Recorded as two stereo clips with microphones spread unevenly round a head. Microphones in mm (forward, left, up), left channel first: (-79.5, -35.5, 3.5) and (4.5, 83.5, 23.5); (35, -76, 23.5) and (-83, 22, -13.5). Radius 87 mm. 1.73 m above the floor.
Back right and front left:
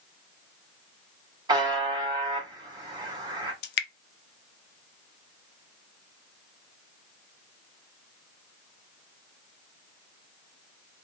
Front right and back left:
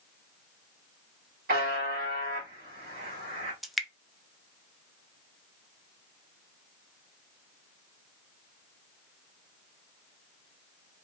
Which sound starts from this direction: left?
A buzzer, at 1.5 s.